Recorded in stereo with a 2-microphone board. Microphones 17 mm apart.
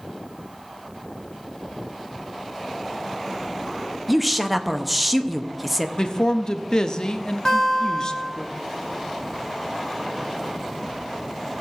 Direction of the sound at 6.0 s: 45° left (ahead or behind).